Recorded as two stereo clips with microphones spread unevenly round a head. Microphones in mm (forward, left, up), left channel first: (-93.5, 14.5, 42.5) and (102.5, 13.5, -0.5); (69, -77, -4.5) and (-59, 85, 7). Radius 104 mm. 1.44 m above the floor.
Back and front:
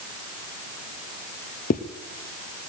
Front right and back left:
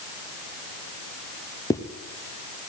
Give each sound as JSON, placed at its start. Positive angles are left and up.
{"t": 1.7, "sound": "a zipper", "azimuth_deg": -125, "distance_m": 0.6}